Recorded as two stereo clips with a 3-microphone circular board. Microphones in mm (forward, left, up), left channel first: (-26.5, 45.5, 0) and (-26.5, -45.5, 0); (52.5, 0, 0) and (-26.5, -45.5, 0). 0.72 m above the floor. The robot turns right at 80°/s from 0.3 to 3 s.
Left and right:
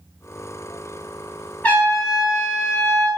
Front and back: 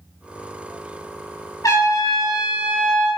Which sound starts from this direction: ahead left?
A trumpet, at 1.6 s.